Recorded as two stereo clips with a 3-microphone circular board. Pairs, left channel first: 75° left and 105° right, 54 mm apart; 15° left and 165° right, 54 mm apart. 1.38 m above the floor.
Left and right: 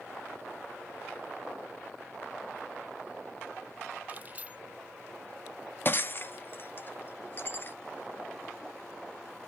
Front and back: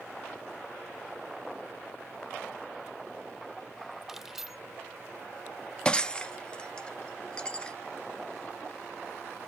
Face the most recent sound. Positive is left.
turn(degrees=80)